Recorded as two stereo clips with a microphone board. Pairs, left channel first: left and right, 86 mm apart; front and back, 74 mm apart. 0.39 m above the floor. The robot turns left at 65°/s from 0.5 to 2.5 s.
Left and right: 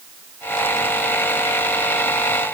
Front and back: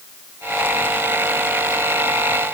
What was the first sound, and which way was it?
Only background noise.